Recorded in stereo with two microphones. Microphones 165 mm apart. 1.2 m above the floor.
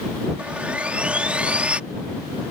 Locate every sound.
0.4 s sawing: 5° right (ahead or behind)